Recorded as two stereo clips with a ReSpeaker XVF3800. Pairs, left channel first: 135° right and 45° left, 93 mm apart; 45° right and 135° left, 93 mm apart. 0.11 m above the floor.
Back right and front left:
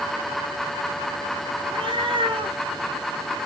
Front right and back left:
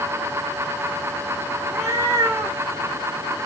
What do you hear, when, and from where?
1.6 s a cat meowing: 70° left, 2.5 m